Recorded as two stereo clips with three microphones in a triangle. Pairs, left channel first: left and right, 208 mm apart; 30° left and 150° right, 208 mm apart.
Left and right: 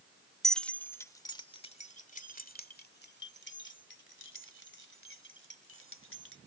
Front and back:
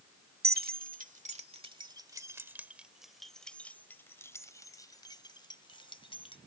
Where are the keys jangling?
Straight behind; by 6.4 s 95° left.